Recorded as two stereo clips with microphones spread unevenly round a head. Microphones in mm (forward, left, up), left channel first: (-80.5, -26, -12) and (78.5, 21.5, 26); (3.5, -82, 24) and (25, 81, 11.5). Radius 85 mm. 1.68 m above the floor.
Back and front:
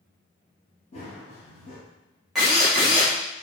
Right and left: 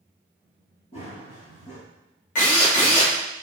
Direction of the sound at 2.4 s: 65° right.